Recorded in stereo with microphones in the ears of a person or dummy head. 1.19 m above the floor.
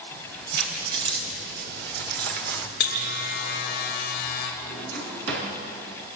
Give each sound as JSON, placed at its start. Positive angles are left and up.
{"t": 0.1, "sound": "keys jangling", "side_deg": -70, "distance_m": 4.0}
{"t": 2.8, "sound": "a buzzer", "side_deg": 50, "distance_m": 3.0}
{"t": 4.6, "sound": "a drawer", "side_deg": -85, "distance_m": 5.5}